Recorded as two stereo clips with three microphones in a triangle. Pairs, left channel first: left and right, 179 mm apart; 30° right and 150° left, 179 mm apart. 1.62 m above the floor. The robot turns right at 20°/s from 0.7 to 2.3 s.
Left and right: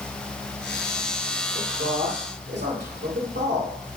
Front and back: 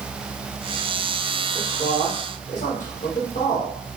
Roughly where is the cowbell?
I don't hear a cowbell.